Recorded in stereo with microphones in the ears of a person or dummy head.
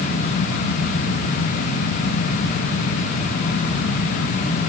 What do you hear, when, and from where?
Only background noise.